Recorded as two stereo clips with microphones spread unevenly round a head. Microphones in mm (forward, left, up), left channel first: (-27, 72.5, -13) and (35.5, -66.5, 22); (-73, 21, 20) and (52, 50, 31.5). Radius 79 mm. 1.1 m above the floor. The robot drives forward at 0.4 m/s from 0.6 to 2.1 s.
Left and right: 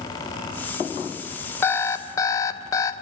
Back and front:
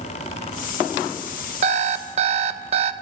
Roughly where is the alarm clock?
Ahead left.